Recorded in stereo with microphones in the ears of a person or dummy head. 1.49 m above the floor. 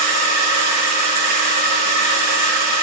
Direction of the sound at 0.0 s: 45° left (ahead or behind).